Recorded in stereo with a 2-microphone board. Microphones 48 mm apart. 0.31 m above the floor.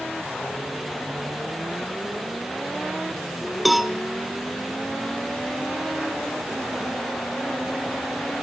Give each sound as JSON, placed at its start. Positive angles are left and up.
{"t": 3.6, "sound": "a cowbell", "side_deg": 0, "distance_m": 0.8}